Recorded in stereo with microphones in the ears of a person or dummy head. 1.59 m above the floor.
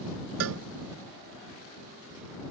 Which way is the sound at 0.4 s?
75° right (ahead or behind).